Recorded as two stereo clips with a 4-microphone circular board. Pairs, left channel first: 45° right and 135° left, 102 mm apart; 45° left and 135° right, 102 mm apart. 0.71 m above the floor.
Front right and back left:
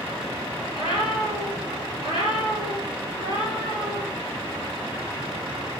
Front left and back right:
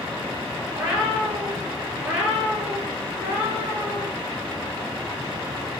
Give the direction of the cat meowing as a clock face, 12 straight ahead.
7 o'clock.